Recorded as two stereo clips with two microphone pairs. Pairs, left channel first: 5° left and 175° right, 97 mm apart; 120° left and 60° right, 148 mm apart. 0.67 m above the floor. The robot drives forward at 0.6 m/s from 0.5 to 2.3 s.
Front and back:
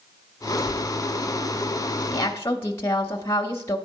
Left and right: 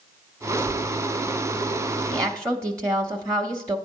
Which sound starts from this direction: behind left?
Tearing paper, at 0.6 s.